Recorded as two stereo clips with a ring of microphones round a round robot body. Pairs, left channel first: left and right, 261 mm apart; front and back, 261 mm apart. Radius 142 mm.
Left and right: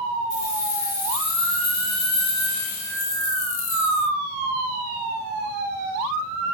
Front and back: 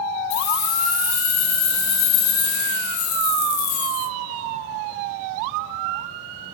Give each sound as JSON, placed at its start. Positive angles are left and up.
{"t": 0.3, "sound": "keys jangling", "azimuth_deg": 30, "distance_m": 6.0}